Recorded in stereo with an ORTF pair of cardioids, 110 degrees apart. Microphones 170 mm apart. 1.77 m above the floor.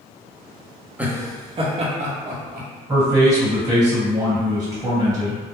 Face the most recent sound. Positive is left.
turn(degrees=-20)